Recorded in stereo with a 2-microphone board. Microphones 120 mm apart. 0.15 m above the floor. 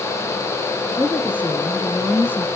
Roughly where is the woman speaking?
Centre.